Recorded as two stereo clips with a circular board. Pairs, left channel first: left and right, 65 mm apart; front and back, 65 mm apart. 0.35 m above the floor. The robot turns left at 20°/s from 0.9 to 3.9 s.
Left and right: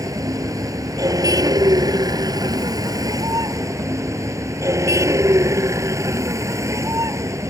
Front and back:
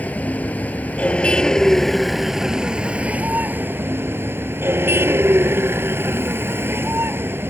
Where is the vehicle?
65° right; by 7.5 s 125° right.